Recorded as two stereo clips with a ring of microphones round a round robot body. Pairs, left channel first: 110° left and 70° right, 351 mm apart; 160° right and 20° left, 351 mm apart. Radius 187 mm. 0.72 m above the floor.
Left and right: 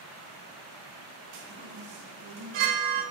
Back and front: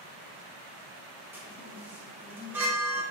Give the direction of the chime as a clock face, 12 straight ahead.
2 o'clock.